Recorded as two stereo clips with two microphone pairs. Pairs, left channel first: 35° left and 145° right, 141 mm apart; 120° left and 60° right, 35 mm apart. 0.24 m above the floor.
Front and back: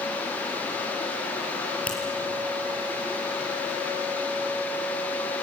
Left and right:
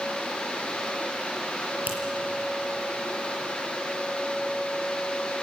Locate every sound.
1.9 s a finger snap: 45° right, 5 m